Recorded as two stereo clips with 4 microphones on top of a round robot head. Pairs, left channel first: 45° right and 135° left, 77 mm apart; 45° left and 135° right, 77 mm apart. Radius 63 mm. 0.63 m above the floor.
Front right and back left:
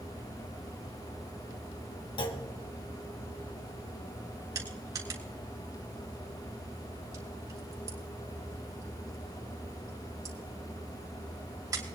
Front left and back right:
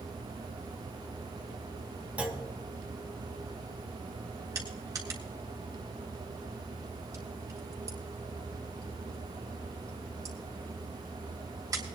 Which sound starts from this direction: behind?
Crushing, at 4.5 s.